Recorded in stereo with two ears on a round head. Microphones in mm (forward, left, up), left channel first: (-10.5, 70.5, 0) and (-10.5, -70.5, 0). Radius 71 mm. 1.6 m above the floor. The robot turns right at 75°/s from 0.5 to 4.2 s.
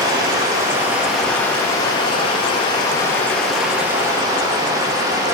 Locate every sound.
0.0 s running water: 50° right, 1.0 m; by 5.3 s 130° right, 1.0 m